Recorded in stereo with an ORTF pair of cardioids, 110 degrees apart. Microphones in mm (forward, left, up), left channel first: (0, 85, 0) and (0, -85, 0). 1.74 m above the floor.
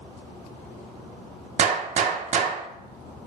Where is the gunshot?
50° right, 0.5 m.